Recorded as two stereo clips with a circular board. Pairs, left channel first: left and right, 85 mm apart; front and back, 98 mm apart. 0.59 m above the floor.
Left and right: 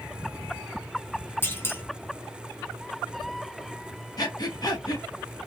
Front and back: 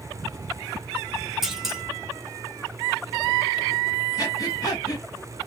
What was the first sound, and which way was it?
A clunk, 100° left.